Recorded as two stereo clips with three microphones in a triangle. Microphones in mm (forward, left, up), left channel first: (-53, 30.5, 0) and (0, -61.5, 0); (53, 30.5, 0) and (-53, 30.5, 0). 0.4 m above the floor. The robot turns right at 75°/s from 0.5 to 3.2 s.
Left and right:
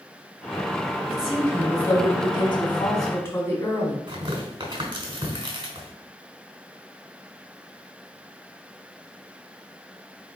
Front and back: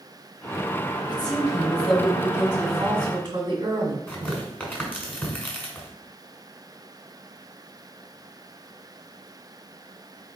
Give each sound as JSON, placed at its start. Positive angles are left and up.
{"t": 1.1, "sound": "a woman speaking", "azimuth_deg": 10, "distance_m": 1.7}
{"t": 4.1, "sound": "tearing paper", "azimuth_deg": -65, "distance_m": 1.4}